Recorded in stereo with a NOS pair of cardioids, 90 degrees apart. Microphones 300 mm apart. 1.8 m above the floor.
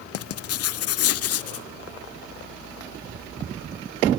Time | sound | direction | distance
0.1 | writing | 55° left | 0.6 m